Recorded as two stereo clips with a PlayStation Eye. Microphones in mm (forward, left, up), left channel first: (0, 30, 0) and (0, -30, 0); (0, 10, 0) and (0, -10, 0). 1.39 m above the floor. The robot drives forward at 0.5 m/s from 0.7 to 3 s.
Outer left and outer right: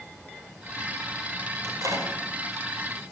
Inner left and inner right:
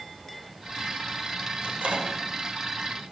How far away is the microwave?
About 5.5 m.